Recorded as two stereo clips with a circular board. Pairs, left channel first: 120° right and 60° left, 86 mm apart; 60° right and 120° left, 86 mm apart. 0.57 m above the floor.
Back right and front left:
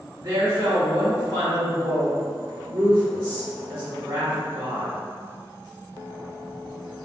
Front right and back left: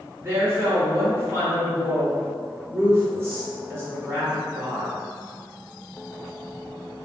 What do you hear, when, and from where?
0.2 s a woman speaking: 65° left, 1.7 m